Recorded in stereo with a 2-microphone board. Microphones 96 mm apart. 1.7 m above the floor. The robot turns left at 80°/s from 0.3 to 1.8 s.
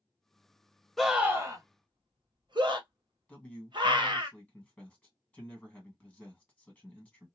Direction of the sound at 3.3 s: 10° left (ahead or behind).